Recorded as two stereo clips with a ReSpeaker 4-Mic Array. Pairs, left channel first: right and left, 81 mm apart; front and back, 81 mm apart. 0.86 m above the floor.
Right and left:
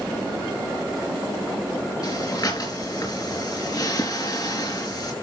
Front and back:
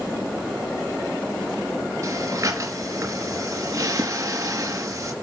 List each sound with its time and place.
2.0 s breathing: 130° right, 4 m